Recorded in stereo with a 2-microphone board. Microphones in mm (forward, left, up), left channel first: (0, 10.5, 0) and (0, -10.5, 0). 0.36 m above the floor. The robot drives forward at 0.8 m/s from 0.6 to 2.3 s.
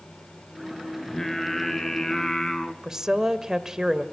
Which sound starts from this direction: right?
A woman speaking, at 2.8 s.